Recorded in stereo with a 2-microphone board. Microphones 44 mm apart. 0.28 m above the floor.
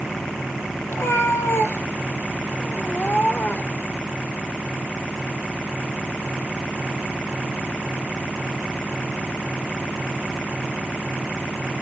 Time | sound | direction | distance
0.9 | a cat meowing | 80° left | 1.5 m